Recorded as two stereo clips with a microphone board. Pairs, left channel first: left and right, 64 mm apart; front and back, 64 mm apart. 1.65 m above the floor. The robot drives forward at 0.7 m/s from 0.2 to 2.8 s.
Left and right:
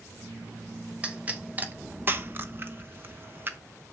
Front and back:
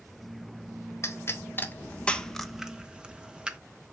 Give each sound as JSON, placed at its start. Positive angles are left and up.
{"t": 1.0, "sound": "a pop", "azimuth_deg": -30, "distance_m": 1.3}